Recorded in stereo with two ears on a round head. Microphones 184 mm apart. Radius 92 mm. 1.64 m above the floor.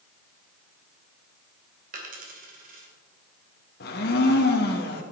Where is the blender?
50° left (ahead or behind), 1.3 m.